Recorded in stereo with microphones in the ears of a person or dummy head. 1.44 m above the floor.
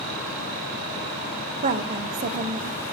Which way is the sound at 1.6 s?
45° right (ahead or behind).